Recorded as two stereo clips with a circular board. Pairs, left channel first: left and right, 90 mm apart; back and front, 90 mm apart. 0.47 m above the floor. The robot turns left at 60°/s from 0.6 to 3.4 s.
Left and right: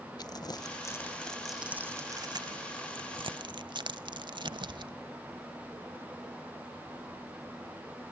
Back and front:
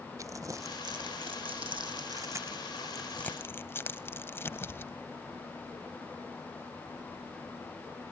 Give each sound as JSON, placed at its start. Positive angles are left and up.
{"t": 0.2, "sound": "crumpling", "azimuth_deg": 50, "distance_m": 0.7}